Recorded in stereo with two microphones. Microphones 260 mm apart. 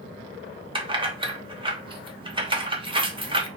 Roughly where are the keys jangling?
Centre.